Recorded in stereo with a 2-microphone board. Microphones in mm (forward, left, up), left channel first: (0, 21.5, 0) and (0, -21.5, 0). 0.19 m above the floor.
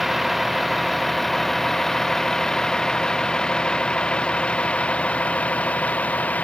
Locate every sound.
0.0 s a vehicle: centre (ahead or behind); by 6.4 s 35° left (ahead or behind)